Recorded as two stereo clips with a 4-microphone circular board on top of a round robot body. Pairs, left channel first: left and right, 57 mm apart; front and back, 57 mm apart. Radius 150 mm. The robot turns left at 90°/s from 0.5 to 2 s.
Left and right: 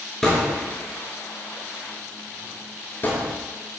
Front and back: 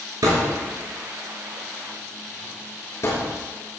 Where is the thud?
170° left, 5.5 m; by 3.3 s 35° left, 5.5 m.